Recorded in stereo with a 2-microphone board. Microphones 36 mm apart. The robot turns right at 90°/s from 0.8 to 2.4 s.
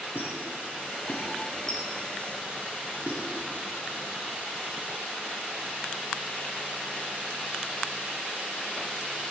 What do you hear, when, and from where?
0.1 s a squeak: 65° left (ahead or behind), 1.7 m; by 3.2 s 40° right (ahead or behind), 1.7 m